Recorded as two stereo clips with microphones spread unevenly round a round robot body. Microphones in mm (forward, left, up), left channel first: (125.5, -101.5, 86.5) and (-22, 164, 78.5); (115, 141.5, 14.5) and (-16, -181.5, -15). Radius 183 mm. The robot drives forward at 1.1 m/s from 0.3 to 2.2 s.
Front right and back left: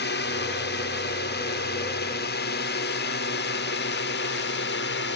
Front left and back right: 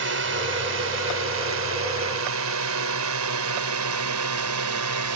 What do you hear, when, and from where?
0.0 s a drone: 95° right; by 5.2 s 105° right